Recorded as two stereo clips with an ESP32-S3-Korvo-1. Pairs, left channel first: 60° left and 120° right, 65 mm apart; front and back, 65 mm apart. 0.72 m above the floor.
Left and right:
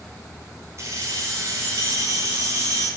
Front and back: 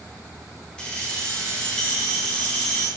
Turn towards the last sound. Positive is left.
turn(degrees=-75)